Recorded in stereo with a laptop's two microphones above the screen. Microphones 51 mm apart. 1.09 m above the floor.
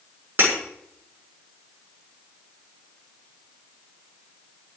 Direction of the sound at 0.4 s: 40° right (ahead or behind).